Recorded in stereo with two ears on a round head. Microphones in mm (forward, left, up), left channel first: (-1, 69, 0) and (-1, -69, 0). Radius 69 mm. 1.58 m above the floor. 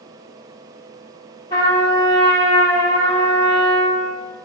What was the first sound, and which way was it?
A trumpet, 30° left (ahead or behind).